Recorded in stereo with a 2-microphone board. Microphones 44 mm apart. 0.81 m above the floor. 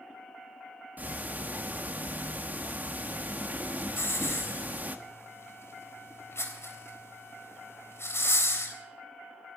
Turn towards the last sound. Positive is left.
turn(degrees=80)